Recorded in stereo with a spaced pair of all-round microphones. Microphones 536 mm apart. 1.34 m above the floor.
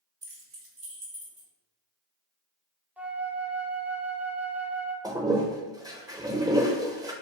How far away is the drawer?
No drawer in this recording.